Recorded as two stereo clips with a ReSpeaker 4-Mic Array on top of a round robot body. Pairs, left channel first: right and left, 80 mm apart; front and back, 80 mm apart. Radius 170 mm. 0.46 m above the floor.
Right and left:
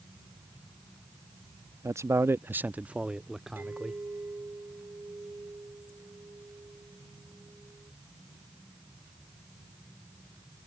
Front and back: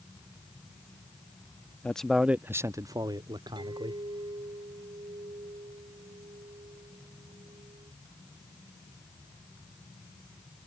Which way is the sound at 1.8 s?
65° left.